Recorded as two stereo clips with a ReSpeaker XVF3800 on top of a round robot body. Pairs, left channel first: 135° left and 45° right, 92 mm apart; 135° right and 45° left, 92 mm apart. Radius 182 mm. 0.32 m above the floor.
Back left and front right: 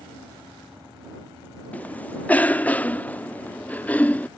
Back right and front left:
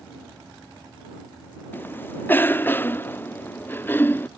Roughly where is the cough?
Behind.